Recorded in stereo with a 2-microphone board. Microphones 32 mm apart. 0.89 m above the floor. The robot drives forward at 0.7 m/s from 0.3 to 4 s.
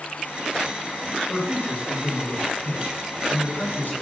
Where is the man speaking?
55° left (ahead or behind), 3 m; by 3.9 s 85° left, 2.5 m.